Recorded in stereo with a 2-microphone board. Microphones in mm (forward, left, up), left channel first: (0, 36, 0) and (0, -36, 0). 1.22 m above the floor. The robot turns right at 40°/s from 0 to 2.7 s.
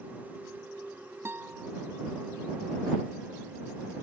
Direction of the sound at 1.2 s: 35° right (ahead or behind).